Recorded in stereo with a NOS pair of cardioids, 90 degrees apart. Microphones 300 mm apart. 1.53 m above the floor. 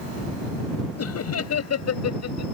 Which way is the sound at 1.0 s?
55° left.